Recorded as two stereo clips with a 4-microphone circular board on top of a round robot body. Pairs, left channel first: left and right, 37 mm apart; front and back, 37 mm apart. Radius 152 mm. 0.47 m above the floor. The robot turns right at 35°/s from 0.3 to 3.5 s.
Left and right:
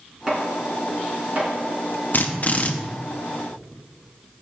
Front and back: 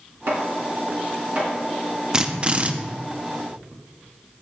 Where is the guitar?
I don't hear a guitar.